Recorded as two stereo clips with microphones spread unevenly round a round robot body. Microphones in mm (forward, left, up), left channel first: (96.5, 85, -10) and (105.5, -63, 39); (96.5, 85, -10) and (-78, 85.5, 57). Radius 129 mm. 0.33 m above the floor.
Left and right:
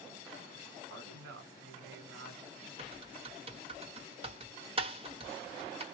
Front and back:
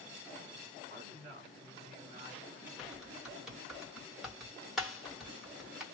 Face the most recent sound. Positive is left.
turn(degrees=-45)